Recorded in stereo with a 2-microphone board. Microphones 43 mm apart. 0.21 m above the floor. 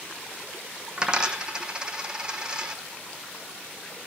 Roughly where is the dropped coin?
Centre.